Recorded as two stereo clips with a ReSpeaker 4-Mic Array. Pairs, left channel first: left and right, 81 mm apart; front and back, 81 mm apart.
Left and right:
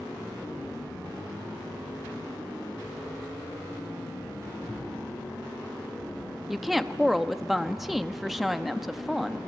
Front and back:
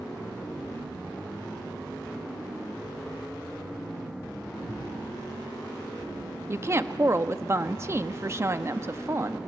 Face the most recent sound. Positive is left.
turn(degrees=-175)